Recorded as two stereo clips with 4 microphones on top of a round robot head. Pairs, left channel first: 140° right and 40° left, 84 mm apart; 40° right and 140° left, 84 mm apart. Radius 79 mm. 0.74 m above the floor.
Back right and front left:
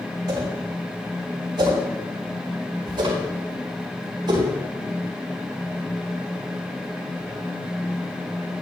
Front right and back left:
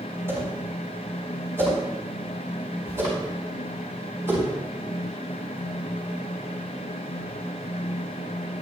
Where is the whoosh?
80° left, 6 m.